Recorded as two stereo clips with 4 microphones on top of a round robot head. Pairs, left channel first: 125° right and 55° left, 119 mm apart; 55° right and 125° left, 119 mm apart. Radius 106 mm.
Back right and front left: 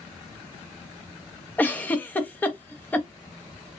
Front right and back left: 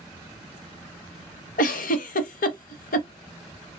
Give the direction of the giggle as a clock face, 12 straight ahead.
2 o'clock.